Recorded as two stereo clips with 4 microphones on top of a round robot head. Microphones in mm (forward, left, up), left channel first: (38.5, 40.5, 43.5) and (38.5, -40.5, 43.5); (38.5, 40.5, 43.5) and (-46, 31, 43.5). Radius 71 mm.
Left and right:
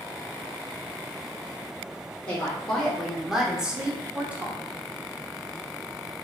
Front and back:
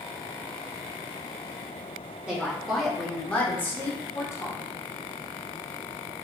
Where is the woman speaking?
125° left, 1.1 m; by 4.6 s 30° right, 1.4 m.